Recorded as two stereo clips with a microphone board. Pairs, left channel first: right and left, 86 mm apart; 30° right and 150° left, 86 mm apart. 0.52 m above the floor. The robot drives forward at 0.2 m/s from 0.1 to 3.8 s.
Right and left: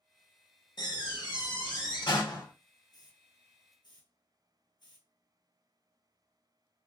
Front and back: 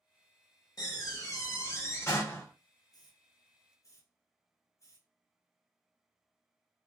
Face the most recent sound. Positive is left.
turn(degrees=-80)